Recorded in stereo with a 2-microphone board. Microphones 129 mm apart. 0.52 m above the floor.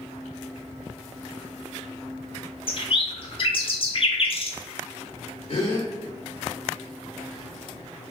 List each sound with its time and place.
2.7 s a bird: 45° left (ahead or behind), 0.6 m
5.5 s a gasp: 50° left (ahead or behind), 1.1 m